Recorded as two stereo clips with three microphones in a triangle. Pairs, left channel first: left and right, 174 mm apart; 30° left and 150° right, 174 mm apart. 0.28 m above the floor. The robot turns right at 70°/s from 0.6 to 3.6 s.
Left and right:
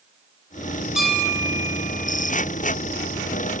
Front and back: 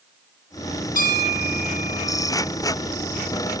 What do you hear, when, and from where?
0.9 s a bell: 5° right, 2 m; by 2.4 s 100° left, 2 m